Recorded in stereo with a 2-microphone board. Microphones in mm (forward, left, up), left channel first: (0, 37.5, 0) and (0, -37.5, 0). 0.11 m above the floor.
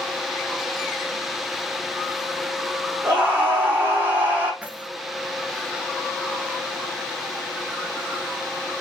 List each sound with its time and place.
3.0 s a scream: 30° right (ahead or behind), 5 m
4.6 s keys jangling: 20° right (ahead or behind), 1.0 m